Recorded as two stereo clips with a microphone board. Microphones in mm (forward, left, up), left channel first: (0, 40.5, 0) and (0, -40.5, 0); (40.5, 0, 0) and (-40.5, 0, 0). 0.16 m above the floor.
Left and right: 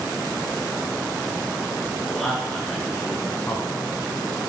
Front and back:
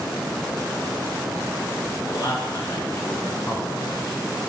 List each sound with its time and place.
2.1 s a man speaking: straight ahead, 2.5 m; by 4.4 s 120° left, 2 m